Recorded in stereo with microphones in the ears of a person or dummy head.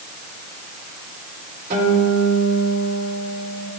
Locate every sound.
1.7 s a guitar: 45° right (ahead or behind), 3.5 m